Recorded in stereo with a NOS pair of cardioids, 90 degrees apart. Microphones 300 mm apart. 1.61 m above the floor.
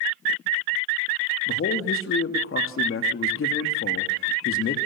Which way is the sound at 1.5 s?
45° left.